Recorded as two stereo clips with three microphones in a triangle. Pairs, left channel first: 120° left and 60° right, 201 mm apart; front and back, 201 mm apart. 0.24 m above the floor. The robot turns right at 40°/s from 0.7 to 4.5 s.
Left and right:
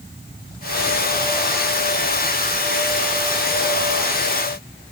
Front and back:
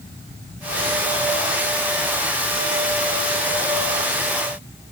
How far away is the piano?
I don't hear a piano.